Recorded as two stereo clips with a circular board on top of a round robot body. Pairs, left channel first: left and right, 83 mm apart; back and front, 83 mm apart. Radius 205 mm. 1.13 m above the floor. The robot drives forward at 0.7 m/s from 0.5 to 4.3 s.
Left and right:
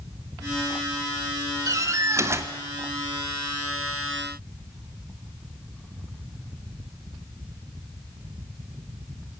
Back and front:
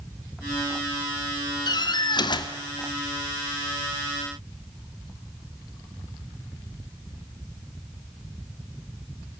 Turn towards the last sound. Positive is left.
turn(degrees=-160)